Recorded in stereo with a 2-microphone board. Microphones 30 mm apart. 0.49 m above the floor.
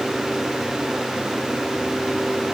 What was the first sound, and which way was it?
Only background noise.